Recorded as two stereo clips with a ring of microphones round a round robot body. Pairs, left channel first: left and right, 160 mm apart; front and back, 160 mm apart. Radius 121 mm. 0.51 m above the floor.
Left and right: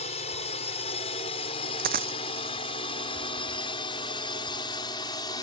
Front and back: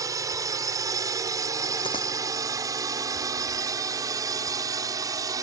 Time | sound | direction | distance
0.0 | a drone | 120° left | ?
1.8 | a dropped coin | 70° right | ?